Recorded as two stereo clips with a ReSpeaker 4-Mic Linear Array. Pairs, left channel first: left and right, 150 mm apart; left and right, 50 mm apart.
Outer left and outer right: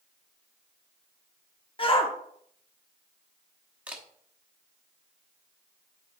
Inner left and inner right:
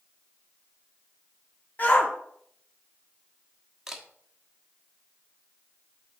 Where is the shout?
35° left (ahead or behind), 1.1 m.